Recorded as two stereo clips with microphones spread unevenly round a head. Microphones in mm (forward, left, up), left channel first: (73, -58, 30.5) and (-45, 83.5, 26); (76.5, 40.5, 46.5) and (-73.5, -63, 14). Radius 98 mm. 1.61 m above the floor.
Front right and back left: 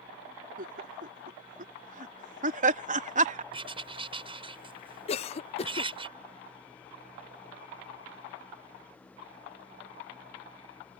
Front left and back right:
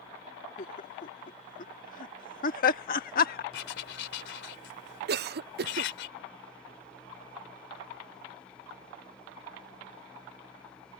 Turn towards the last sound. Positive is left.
turn(degrees=-110)